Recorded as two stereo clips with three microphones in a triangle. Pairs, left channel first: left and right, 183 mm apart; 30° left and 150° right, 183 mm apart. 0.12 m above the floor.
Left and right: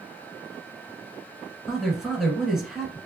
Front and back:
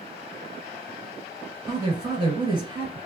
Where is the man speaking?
175° right, 1.5 m.